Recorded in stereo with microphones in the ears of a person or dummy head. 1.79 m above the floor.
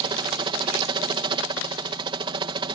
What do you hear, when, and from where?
0.0 s a helicopter: 30° right (ahead or behind)